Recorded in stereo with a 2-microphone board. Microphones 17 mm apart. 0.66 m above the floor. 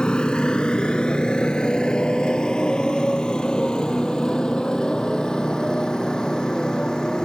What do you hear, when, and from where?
0.0 s a motorcycle: 80° left; by 7.2 s 55° left (ahead or behind)